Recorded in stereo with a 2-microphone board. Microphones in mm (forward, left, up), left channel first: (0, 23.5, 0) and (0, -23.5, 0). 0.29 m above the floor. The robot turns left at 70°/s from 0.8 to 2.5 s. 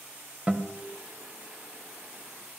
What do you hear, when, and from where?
0.5 s a guitar: 25° right (ahead or behind), 1.4 m; by 0.8 s 30° right (ahead or behind), 1.4 m